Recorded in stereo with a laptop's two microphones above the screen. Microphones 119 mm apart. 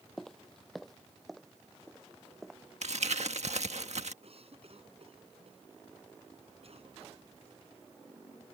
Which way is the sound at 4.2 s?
55° right (ahead or behind).